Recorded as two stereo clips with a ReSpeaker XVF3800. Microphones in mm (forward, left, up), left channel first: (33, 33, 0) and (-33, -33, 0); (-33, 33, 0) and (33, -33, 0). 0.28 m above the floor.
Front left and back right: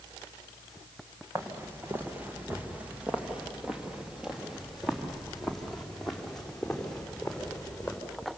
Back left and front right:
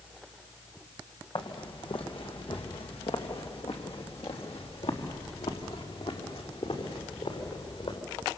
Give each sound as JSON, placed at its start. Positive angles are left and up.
{"t": 1.4, "sound": "footsteps", "azimuth_deg": 160, "distance_m": 2.5}